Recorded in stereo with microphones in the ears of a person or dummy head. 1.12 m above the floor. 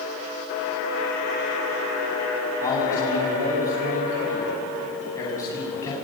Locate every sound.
2.6 s a man speaking: 25° left (ahead or behind), 10 m